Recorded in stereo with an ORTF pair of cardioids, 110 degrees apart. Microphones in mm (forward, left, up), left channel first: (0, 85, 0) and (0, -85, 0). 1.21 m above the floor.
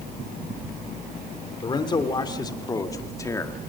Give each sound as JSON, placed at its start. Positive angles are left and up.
{"t": 1.6, "sound": "a man speaking", "azimuth_deg": 25, "distance_m": 3.5}